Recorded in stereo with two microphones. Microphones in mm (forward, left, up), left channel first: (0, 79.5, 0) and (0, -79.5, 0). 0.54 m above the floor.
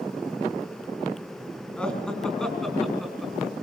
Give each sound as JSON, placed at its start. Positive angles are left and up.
{"t": 1.8, "sound": "laughter", "side_deg": 5, "distance_m": 4.0}